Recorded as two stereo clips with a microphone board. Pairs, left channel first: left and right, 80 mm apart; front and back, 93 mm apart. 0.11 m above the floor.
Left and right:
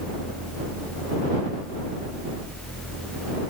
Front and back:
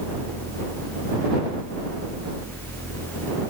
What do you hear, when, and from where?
Only background noise.